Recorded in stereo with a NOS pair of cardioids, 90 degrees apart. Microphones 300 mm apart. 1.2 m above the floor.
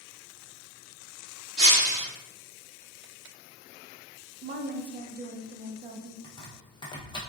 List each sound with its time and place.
1.6 s breaking glass: 35° right, 1.6 m
4.4 s a woman speaking: 30° right, 0.5 m
6.2 s chopping: 15° left, 0.9 m